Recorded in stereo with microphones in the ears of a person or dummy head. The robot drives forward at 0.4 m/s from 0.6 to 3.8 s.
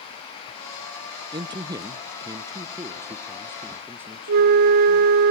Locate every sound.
1.3 s a man speaking: 25° right (ahead or behind), 0.6 m; by 5.2 s 15° right (ahead or behind), 1.1 m
4.3 s a flute: 55° right (ahead or behind), 0.6 m